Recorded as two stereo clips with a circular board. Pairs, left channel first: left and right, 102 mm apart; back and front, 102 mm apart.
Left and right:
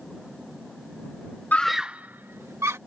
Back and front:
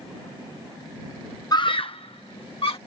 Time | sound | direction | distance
1.5 | a scream | 155° left | ?